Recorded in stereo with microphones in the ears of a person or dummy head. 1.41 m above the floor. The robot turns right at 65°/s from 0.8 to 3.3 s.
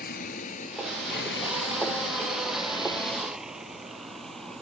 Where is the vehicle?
55° left (ahead or behind); by 4.6 s centre (ahead or behind).